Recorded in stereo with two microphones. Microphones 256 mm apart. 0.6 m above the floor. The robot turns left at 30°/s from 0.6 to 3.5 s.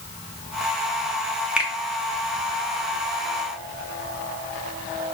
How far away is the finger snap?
About 0.5 m.